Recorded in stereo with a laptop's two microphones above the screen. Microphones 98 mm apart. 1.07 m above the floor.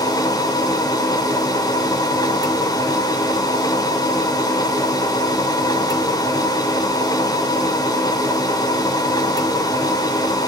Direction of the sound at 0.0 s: 40° left (ahead or behind).